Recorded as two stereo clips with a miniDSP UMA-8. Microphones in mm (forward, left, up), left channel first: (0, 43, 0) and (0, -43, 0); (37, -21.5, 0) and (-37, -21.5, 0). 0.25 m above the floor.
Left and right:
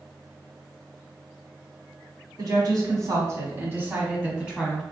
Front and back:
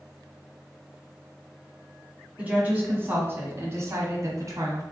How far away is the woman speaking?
About 1.6 m.